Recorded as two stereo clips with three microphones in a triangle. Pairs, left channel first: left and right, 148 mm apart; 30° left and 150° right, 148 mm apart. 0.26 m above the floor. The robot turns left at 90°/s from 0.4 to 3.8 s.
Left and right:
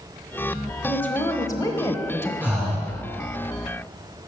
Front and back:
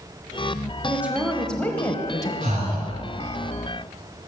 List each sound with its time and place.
0.8 s a woman speaking: 165° left, 1.0 m; by 2.3 s 35° left, 1.0 m
2.4 s breathing: 165° right, 3 m; by 2.9 s 150° left, 3 m